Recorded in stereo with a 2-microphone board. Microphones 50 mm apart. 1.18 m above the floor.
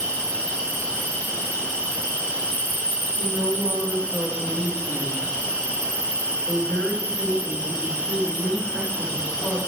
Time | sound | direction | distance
0.0 | an insect | 75° right (ahead or behind) | 2.5 m
3.2 | a woman speaking | 45° right (ahead or behind) | 1.9 m